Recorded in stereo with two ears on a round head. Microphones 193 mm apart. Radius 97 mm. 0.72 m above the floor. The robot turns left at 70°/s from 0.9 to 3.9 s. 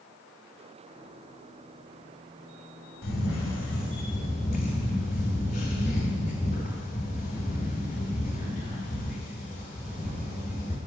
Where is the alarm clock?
No alarm clock in this recording.